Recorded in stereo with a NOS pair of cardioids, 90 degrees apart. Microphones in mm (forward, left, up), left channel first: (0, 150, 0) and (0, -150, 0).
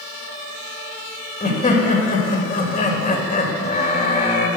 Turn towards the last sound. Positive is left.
turn(degrees=25)